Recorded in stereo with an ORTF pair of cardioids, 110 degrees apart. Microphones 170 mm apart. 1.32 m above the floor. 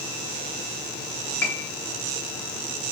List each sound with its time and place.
1.4 s a piano: 10° left, 1.7 m